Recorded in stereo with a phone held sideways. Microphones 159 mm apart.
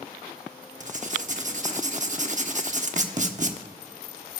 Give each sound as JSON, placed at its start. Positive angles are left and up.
{"t": 0.8, "sound": "writing", "side_deg": -50, "distance_m": 1.0}